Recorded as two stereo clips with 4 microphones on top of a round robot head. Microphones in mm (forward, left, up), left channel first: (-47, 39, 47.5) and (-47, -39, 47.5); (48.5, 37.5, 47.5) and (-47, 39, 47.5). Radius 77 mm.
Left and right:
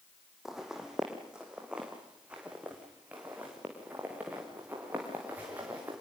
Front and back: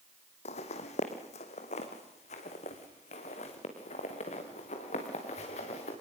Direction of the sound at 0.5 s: 5° right.